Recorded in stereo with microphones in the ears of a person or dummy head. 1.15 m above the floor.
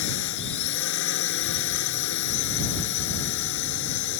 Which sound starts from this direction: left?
A drone, at 0.0 s.